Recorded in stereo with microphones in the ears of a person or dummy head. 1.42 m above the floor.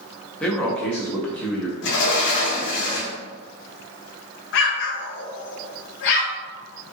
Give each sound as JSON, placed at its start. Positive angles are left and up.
{"t": 0.4, "sound": "a man speaking", "side_deg": 5, "distance_m": 0.9}
{"t": 1.8, "sound": "a sliding door", "side_deg": 55, "distance_m": 1.1}
{"t": 4.5, "sound": "an explosion", "side_deg": 60, "distance_m": 0.6}